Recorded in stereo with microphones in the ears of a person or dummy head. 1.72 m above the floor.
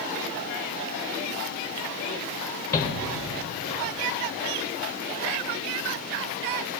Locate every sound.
2.7 s a shout: 15° left (ahead or behind), 0.8 m